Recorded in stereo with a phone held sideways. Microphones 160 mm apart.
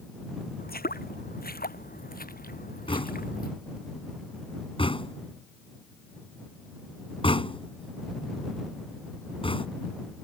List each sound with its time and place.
0.6 s footsteps: 70° left (ahead or behind); by 3.5 s 65° left (ahead or behind)
2.9 s knocking: 35° left (ahead or behind)